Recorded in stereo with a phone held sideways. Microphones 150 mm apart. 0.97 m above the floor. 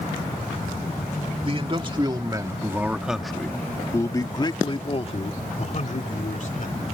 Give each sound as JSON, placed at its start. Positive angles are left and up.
{"t": 1.4, "sound": "a man speaking", "side_deg": -40}